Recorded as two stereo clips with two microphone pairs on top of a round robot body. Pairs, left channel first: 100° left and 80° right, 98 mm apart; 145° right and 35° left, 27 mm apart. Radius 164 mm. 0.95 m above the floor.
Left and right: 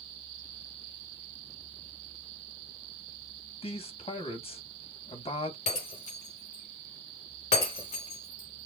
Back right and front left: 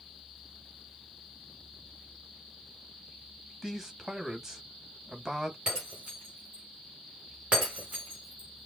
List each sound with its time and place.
3.6 s a man speaking: 110° left, 2 m
5.7 s breaking glass: 90° left, 3 m